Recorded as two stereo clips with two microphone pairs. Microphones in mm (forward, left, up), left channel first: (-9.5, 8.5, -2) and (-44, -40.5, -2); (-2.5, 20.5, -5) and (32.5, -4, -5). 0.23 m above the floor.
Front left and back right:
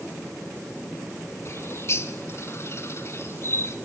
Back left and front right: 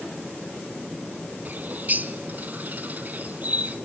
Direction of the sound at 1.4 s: 15° left.